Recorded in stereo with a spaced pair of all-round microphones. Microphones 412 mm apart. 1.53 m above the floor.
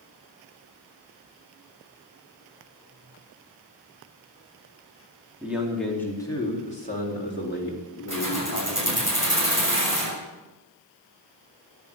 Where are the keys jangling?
45° right (ahead or behind), 6.5 m.